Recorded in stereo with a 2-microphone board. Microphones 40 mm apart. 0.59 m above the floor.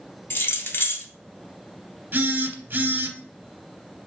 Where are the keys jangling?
60° left (ahead or behind), 0.7 m.